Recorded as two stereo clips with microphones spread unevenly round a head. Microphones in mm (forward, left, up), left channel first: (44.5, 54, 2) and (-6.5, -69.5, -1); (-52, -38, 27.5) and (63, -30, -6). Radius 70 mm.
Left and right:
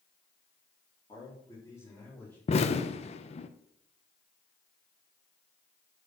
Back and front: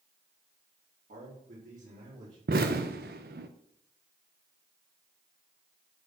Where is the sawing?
I don't hear sawing.